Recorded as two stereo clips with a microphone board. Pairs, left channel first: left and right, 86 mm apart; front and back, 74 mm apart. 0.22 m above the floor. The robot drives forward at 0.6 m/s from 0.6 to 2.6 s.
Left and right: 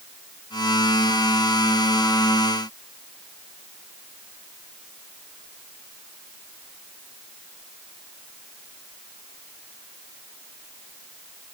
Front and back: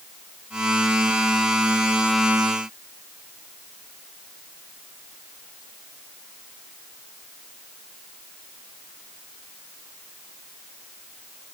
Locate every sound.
Only background noise.